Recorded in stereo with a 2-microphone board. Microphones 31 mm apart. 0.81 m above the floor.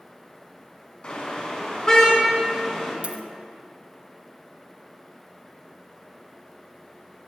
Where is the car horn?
35° left (ahead or behind), 4 m; by 2.9 s 20° left (ahead or behind), 4 m.